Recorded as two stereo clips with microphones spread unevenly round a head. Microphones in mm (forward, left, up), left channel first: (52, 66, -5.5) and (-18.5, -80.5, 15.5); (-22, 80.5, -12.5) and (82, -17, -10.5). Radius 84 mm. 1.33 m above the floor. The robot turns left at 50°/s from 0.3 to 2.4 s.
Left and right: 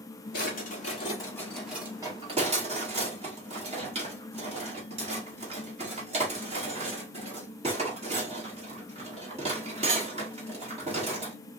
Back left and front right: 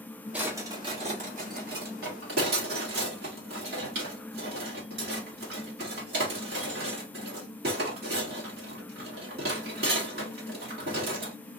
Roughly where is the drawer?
Ahead left.